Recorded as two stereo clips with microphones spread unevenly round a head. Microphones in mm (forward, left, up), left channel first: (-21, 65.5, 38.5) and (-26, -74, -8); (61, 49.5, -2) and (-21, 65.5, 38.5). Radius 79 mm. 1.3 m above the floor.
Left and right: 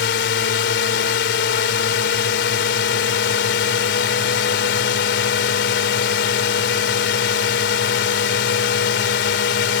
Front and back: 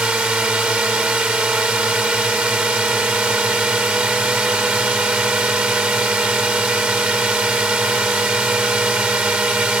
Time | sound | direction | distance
0.0 | a drone | 90° left | ?